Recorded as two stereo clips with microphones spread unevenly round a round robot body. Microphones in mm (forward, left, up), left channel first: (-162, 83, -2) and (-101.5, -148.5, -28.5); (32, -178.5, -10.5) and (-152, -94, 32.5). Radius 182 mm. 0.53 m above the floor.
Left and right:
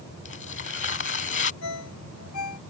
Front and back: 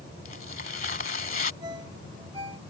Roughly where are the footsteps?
I don't hear footsteps.